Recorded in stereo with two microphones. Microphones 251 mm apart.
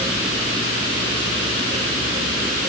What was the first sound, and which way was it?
Only background noise.